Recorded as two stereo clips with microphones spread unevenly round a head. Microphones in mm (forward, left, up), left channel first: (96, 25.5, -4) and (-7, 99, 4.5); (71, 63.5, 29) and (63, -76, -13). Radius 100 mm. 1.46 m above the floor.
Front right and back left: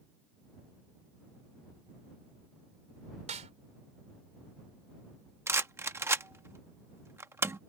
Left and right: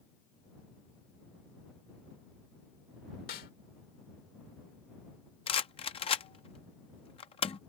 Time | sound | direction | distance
3.3 | a snare drum | 120° left | ?
5.5 | a rattle | 85° left | ?